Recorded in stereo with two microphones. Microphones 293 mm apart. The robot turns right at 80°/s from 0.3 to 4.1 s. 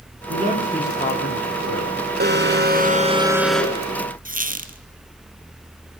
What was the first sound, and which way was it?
A man speaking, 35° right.